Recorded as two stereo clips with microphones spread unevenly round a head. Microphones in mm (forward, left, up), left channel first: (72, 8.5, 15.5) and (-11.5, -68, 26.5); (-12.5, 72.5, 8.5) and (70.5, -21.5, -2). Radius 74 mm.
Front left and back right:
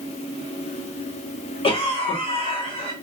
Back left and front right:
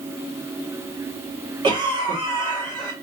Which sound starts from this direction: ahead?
A cough, at 1.6 s.